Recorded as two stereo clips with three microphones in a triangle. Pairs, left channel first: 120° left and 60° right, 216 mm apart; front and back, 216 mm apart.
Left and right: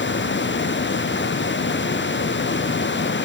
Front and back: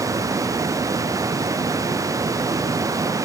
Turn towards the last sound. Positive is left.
No sound to turn to.